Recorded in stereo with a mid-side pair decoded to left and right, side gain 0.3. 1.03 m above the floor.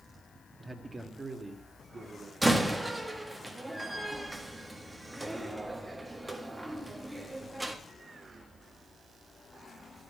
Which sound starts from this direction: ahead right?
A man speaking, at 0.6 s.